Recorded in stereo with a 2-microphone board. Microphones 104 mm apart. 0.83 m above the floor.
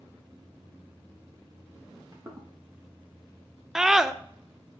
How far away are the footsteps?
About 1.8 m.